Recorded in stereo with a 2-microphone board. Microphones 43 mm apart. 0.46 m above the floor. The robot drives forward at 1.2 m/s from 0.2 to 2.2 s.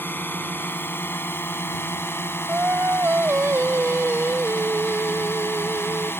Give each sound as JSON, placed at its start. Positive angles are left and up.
{"t": 0.0, "sound": "a drone", "side_deg": 55}
{"t": 2.5, "sound": "singing", "side_deg": -80}